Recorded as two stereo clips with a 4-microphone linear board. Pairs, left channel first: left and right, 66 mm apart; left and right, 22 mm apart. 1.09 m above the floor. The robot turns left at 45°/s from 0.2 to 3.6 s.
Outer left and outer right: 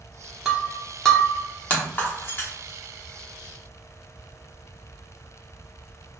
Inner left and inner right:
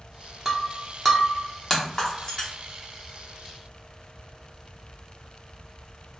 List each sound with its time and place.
0.5 s breaking glass: 10° right (ahead or behind), 0.7 m; by 2.5 s 35° left (ahead or behind), 0.7 m